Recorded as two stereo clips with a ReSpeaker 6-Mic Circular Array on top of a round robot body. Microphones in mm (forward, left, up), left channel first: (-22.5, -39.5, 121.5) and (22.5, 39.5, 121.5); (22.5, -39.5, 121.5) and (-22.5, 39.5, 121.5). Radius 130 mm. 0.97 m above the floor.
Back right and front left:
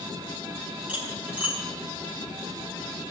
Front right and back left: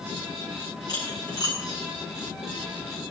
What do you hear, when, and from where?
0.9 s cutlery clinking: 10° right, 6.5 m